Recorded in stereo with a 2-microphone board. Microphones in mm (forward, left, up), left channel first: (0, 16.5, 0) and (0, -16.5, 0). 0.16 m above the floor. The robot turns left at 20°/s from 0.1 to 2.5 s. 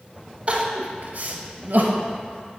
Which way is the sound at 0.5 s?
45° right (ahead or behind).